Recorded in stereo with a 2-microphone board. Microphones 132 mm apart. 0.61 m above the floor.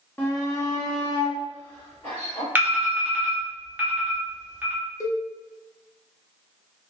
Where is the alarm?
15° right (ahead or behind), 0.8 m.